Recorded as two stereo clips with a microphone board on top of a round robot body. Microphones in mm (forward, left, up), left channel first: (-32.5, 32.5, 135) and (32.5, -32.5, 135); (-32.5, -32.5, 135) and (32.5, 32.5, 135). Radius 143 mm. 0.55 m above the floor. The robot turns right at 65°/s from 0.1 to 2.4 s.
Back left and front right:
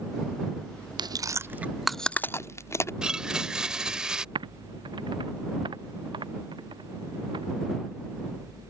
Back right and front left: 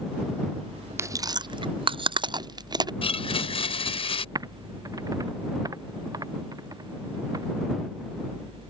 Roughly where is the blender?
Behind right.